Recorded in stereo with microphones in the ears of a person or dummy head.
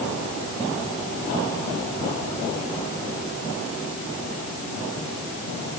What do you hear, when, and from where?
Only background noise.